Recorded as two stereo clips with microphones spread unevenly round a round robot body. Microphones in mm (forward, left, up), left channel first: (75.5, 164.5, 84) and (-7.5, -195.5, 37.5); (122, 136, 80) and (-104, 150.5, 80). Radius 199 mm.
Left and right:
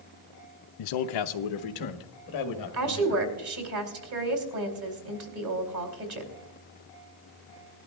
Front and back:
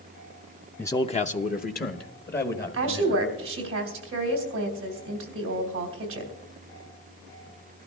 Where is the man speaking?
80° left, 0.5 m; by 3.2 s 40° left, 2.0 m.